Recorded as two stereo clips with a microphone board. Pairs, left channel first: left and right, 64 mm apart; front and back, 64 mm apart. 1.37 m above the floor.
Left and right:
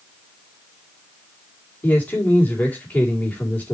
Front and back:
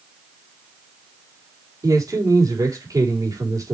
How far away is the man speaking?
About 4 m.